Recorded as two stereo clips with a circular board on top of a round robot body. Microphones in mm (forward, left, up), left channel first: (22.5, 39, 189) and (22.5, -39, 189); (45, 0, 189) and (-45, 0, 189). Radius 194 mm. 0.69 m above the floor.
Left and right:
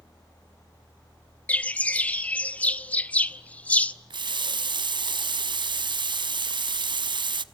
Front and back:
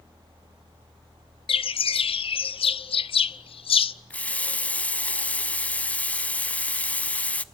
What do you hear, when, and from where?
1.5 s a bird: 20° left, 0.6 m
4.1 s a running tap: 75° right, 1.0 m